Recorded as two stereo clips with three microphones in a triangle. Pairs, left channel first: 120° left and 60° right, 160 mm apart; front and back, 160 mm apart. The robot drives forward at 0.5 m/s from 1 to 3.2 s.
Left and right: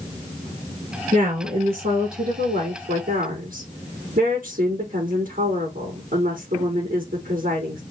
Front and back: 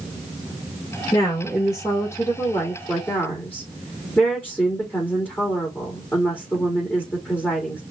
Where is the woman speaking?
65° right, 4.5 m; by 7.8 s 80° right, 4 m.